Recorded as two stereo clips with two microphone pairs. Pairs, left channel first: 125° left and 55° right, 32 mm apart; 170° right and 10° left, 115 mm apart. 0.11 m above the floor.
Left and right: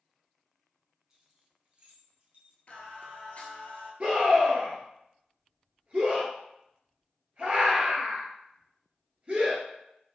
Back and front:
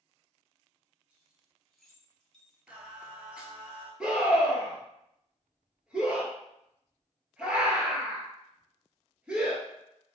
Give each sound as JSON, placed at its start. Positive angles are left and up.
{"t": 1.1, "sound": "keys jangling", "azimuth_deg": -55, "distance_m": 0.8}
{"t": 2.7, "sound": "singing", "azimuth_deg": 90, "distance_m": 0.7}
{"t": 4.0, "sound": "a scream", "azimuth_deg": -70, "distance_m": 1.5}